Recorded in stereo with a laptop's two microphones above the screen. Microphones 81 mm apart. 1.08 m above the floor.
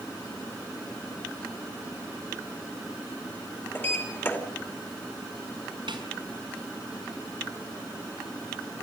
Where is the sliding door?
25° left (ahead or behind), 2.5 m.